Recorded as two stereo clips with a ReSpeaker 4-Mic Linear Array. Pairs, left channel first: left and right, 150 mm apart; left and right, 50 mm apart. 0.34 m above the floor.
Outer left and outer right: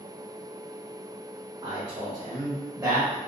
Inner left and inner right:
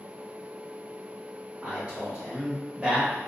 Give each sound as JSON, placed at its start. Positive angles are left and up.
{"t": 1.6, "sound": "a man speaking", "side_deg": -35, "distance_m": 1.1}